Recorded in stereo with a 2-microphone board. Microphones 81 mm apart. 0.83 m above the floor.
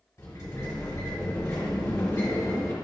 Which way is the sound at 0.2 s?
40° left (ahead or behind).